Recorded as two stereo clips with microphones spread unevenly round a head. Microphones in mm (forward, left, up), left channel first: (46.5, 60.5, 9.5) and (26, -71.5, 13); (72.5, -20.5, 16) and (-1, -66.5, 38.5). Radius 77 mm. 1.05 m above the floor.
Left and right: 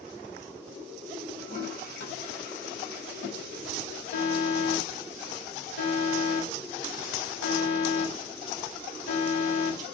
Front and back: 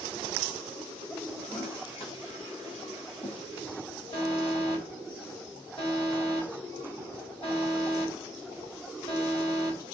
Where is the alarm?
100° left, 6.5 m.